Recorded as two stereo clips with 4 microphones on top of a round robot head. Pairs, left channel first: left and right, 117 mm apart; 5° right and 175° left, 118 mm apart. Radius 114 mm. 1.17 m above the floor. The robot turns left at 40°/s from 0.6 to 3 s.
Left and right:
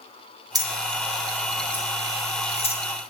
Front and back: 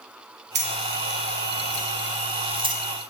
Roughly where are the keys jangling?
Behind right.